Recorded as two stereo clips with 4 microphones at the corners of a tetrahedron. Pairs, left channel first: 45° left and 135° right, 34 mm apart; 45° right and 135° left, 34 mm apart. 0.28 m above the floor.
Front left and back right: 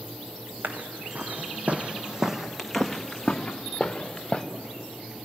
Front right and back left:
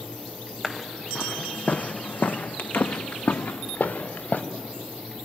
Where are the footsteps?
125° right, 1.5 m; by 4.4 s 20° right, 2.5 m.